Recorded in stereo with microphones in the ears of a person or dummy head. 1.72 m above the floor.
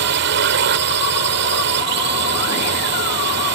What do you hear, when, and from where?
0.0 s a drone: 65° right (ahead or behind)